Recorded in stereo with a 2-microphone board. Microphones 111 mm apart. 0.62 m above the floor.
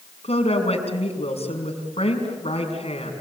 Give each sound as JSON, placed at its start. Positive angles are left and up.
{"t": 0.2, "sound": "a woman speaking", "side_deg": 70, "distance_m": 6.0}